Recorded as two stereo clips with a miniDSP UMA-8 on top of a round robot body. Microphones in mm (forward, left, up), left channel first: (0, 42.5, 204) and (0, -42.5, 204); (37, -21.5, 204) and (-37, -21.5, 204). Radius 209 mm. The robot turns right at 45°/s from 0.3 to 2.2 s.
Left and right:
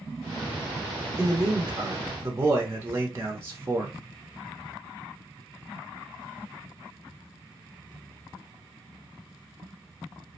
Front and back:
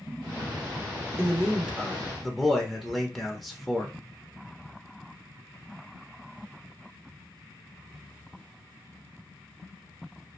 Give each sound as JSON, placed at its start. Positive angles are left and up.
{"t": 1.2, "sound": "a man speaking", "azimuth_deg": -135, "distance_m": 0.9}